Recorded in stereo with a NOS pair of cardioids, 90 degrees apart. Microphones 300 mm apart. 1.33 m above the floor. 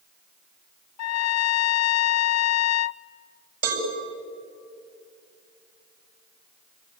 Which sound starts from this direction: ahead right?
A cowbell, at 3.6 s.